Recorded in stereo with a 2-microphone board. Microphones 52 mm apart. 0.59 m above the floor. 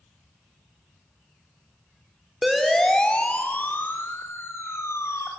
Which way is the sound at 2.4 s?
5° right (ahead or behind).